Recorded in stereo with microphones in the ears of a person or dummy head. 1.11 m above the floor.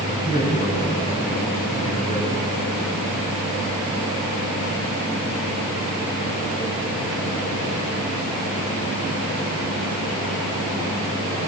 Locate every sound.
0.1 s a man speaking: 40° left (ahead or behind), 10 m